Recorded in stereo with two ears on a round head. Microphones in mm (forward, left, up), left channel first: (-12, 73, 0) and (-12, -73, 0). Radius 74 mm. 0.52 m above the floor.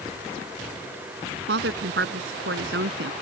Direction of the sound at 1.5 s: 70° right (ahead or behind).